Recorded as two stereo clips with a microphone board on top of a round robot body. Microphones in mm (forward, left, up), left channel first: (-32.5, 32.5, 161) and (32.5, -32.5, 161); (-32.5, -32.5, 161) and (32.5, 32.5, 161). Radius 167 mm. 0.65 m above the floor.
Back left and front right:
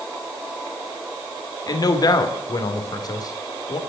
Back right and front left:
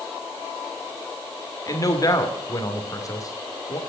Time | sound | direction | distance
1.7 | a man speaking | 175° left | 2.5 m